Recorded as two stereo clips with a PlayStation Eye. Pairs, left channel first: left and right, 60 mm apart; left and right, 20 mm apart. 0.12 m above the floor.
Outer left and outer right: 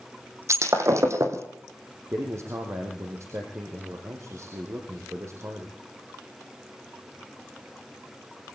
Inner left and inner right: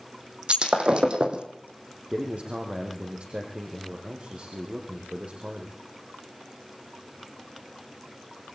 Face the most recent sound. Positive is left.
turn(degrees=-50)  # may be behind; listen again after turning